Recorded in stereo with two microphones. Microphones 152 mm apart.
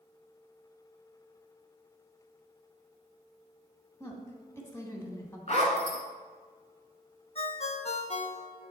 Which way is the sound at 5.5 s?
45° left (ahead or behind).